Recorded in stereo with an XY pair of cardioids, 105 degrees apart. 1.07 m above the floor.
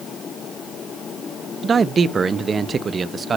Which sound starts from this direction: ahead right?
A man speaking, at 1.6 s.